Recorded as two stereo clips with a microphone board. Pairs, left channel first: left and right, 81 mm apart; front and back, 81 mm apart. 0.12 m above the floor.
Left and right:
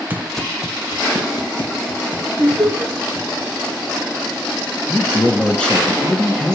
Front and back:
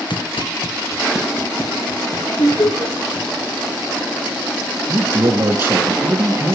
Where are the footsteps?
25° right, 0.6 m; by 3.4 s 75° left, 4 m.